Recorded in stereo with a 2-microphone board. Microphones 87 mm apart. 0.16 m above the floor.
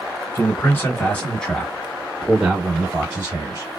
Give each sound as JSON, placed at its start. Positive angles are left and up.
{"t": 0.3, "sound": "a man speaking", "side_deg": 25, "distance_m": 1.5}